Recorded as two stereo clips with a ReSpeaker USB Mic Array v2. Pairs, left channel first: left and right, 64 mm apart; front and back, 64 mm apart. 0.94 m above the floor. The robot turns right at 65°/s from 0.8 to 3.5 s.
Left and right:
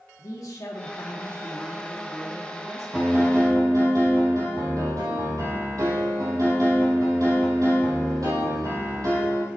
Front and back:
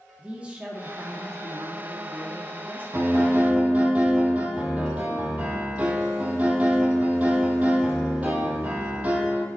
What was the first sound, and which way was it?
A man speaking, 110° left.